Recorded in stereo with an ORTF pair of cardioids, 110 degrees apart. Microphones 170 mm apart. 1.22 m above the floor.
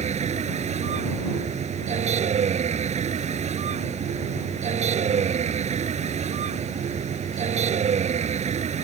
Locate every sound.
0.0 s a vehicle: 40° right